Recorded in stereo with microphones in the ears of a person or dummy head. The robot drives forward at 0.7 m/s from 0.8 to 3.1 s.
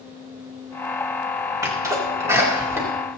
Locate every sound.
1.6 s a sneeze: 20° right (ahead or behind), 3.5 m; by 2.9 s 15° right (ahead or behind), 4 m